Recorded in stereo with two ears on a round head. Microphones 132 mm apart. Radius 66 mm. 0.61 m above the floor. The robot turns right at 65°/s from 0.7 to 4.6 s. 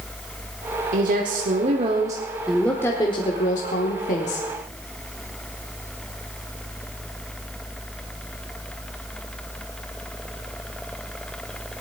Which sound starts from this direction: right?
A woman speaking, at 0.9 s.